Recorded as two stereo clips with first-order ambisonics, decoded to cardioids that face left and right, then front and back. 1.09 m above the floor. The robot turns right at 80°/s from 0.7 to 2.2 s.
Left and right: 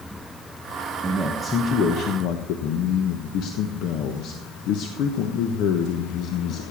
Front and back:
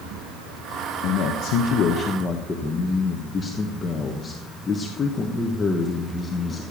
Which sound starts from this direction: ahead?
A man speaking, at 1.0 s.